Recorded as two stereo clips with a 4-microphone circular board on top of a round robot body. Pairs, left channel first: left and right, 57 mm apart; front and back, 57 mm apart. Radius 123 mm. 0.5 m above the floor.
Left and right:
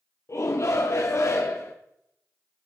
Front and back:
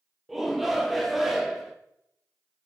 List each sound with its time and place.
0.3 s a shout: 95° left, 1.0 m